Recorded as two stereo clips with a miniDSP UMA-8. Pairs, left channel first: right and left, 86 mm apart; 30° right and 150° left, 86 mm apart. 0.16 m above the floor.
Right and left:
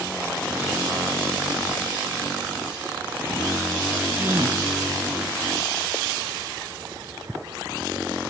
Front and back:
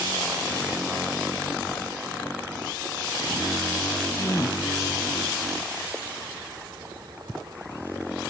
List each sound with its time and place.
4.1 s a gasp: 20° left, 2.5 m